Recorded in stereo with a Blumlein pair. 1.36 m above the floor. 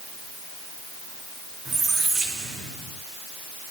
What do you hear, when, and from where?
1.6 s a squeak: 20° right, 2.5 m